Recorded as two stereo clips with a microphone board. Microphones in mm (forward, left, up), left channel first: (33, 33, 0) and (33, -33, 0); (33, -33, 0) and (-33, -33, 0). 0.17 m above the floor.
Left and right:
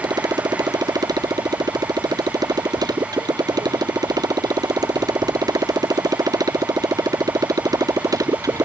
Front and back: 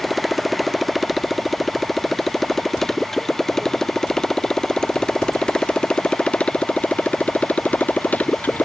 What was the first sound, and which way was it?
A motorcycle, 90° right.